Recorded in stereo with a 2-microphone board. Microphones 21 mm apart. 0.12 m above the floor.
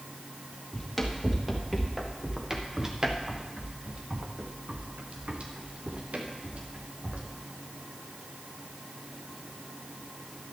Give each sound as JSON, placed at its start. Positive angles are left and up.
{"t": 0.7, "sound": "running footsteps", "side_deg": 5, "distance_m": 2.5}